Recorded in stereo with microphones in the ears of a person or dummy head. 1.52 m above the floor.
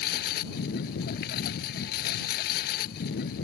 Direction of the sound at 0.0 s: 50° left (ahead or behind).